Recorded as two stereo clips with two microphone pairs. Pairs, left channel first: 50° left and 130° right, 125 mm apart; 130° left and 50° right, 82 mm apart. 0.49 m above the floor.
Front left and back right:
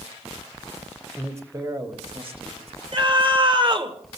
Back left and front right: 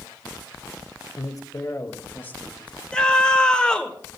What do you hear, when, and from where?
1.2 s a man speaking: 155° left, 1.7 m; by 2.8 s 155° right, 3.5 m
2.9 s a scream: 155° right, 1.6 m